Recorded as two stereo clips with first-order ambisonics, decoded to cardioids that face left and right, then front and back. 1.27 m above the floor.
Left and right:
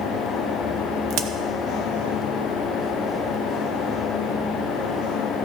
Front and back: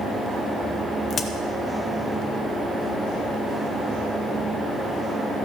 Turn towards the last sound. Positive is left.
turn(degrees=-65)